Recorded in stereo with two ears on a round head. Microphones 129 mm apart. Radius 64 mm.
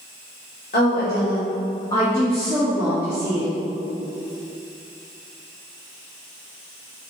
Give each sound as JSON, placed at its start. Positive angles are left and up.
{"t": 0.7, "sound": "a woman speaking", "side_deg": 65, "distance_m": 1.8}